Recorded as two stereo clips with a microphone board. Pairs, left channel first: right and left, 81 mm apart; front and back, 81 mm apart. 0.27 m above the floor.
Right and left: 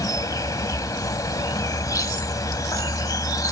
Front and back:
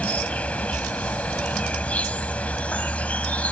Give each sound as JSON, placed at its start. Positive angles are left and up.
{"t": 0.0, "sound": "an insect", "azimuth_deg": -70}